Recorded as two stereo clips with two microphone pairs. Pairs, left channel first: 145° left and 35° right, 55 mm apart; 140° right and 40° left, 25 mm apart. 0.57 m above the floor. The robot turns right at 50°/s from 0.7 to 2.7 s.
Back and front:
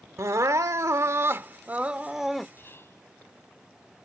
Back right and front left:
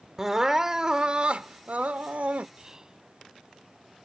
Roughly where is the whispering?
Left.